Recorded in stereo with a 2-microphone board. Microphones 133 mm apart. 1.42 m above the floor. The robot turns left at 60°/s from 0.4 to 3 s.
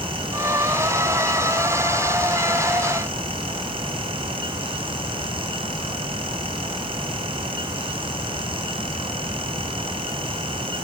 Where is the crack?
No crack in this recording.